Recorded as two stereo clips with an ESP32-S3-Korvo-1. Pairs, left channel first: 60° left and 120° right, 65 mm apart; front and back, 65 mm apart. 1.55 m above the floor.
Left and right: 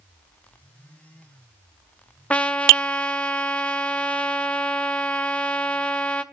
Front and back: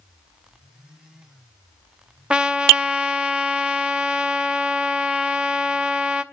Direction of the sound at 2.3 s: 120° left.